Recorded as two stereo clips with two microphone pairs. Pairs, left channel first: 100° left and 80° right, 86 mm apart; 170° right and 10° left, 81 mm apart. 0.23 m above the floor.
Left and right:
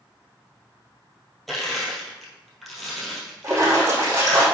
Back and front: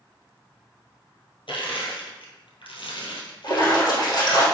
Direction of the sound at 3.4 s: 135° right.